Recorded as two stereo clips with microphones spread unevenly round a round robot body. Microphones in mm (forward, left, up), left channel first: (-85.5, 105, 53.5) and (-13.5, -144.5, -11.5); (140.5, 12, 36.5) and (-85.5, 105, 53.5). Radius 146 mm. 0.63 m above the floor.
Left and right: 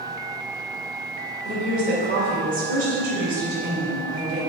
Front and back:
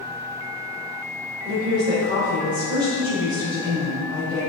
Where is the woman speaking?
125° right, 3 m.